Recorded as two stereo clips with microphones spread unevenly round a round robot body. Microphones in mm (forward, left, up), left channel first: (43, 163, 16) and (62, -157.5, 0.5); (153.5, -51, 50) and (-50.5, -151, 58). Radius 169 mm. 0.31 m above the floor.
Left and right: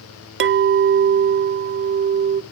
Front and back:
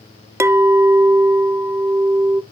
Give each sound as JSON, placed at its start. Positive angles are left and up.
{"t": 0.4, "sound": "a clink", "azimuth_deg": -80, "distance_m": 0.5}